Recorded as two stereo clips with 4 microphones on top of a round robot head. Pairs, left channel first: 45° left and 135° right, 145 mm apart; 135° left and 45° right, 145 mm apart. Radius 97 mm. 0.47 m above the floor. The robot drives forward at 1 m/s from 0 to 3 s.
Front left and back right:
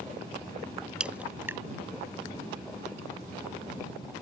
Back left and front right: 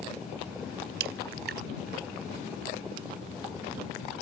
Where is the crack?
50° right; by 1.6 s 60° right.